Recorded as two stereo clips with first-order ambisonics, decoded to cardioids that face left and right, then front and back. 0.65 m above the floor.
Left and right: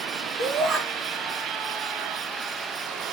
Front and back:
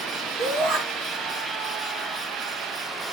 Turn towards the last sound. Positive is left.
turn(degrees=-150)